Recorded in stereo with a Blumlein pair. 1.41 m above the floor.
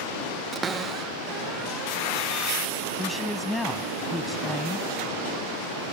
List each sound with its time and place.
0.5 s a cupboard door: 20° right
3.0 s a man speaking: 5° left